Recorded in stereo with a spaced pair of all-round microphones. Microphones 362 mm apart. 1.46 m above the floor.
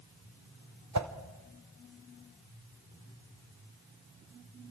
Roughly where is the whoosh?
Right.